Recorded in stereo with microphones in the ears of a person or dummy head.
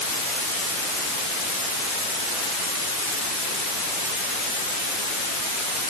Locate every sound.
Only background noise.